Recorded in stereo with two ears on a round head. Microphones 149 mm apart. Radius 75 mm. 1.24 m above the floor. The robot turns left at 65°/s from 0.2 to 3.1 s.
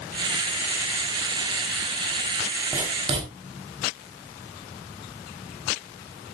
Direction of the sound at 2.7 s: 5° right (ahead or behind).